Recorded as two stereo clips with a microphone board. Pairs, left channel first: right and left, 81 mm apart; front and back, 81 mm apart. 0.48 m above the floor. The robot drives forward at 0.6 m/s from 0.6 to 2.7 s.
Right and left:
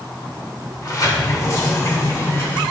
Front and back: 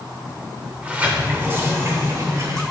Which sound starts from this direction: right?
A sliding door, at 0.8 s.